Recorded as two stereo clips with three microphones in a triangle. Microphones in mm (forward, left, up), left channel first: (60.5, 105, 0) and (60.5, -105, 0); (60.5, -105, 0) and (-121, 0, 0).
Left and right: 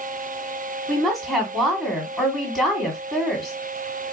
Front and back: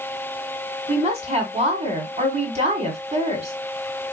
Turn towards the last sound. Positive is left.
turn(degrees=180)